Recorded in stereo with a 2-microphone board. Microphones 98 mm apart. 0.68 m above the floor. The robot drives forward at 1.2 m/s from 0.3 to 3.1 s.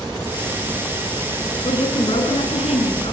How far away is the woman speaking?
About 8 m.